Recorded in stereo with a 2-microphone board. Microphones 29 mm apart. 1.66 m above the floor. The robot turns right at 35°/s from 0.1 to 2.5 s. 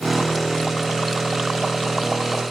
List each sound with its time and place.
Only background noise.